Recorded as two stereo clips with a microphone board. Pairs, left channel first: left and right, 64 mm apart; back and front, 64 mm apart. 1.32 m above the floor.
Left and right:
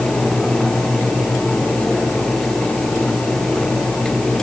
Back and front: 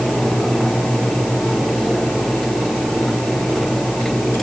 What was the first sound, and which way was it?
Only background noise.